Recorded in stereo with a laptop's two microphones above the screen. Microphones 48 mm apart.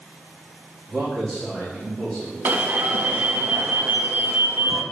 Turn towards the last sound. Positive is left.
turn(degrees=-40)  # may be behind; listen again after turning